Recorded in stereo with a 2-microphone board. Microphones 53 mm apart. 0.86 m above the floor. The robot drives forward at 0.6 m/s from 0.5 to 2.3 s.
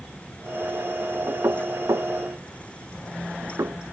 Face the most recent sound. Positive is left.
turn(degrees=-65)  # may be behind; listen again after turning